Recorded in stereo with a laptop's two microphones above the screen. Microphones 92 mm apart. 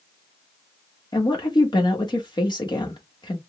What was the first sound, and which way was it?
A woman speaking, 55° left (ahead or behind).